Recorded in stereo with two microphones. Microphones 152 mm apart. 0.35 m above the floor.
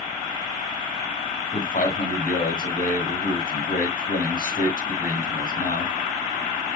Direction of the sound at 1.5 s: 60° left (ahead or behind).